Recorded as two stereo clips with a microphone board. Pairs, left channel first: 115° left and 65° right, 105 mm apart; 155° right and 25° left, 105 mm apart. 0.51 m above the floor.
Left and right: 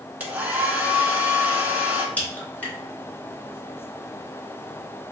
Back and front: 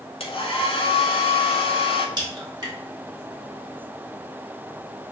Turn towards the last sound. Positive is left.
turn(degrees=45)